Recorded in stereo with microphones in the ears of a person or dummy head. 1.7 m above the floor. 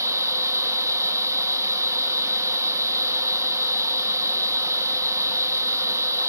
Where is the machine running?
15° right (ahead or behind), 1.2 m.